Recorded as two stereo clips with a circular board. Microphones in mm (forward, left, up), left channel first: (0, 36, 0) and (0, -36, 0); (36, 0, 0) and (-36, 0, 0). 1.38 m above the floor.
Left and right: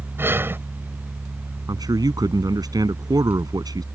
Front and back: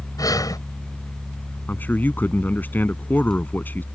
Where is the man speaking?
65° right.